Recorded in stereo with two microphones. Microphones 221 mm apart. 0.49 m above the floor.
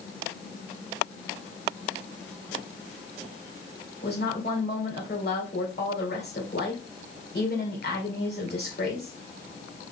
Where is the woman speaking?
50° left (ahead or behind), 1.8 m.